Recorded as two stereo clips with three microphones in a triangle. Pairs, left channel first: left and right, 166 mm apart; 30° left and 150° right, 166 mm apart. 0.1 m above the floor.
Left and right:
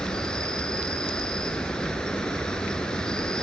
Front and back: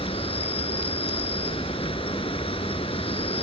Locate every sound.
0.0 s an insect: 10° left, 1.0 m